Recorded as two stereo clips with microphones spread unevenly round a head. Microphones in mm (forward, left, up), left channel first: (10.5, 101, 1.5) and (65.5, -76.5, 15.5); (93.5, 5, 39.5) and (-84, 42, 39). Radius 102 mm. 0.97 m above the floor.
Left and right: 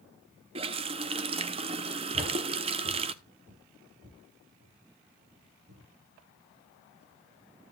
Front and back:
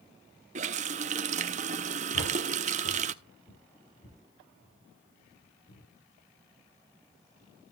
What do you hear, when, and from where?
0.6 s a running tap: 135° right, 0.6 m
2.1 s footsteps: 20° right, 5.5 m; by 5.9 s 50° right, 5.5 m